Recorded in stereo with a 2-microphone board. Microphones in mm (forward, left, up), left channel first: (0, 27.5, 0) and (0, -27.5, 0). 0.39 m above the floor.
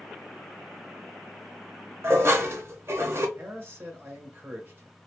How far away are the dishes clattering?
About 0.7 m.